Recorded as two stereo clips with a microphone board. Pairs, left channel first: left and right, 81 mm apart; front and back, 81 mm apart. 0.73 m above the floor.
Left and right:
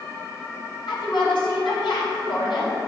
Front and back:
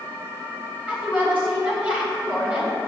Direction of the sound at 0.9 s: 105° left.